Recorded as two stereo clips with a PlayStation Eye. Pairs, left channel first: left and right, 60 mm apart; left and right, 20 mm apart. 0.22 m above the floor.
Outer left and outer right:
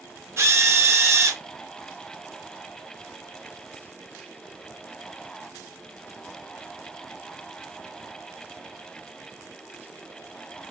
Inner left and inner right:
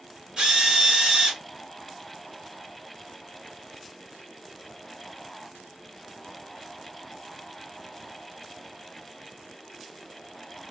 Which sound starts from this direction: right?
A drill, at 0.4 s.